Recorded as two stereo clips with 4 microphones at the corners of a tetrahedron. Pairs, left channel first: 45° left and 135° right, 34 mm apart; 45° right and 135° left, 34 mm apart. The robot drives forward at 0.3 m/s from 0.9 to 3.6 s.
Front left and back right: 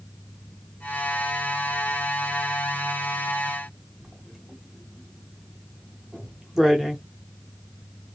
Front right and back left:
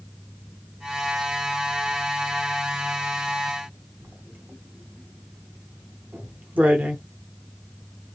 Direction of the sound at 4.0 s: 145° left.